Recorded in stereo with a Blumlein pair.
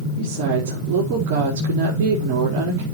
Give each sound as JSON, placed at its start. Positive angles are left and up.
{"t": 0.2, "sound": "a woman speaking", "azimuth_deg": -45, "distance_m": 4.5}